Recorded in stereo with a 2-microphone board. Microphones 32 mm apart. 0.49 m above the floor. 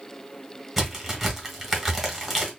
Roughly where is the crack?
Centre.